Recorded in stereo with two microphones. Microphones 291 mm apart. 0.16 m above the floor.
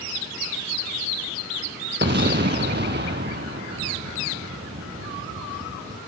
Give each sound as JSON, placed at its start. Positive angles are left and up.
{"t": 2.0, "sound": "an explosion", "side_deg": -35, "distance_m": 0.8}